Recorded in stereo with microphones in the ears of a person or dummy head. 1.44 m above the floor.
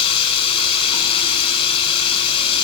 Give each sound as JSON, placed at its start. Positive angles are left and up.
{"t": 0.0, "sound": "running water", "side_deg": 30, "distance_m": 7.5}